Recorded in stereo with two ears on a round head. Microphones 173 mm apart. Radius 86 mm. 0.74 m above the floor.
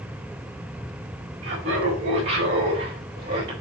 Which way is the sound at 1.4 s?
65° right (ahead or behind).